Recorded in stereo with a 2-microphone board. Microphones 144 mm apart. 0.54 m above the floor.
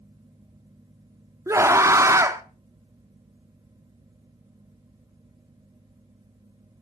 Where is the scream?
20° right (ahead or behind), 0.8 m.